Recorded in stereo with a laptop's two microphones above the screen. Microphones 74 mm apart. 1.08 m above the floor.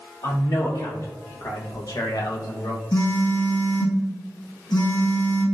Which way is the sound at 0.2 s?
55° left (ahead or behind).